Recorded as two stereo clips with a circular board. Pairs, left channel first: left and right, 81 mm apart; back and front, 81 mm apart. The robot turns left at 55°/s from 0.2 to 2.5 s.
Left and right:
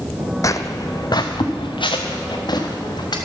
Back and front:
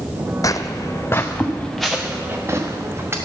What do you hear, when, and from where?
0.4 s footsteps: 135° left, 0.5 m; by 3.2 s 60° left, 3 m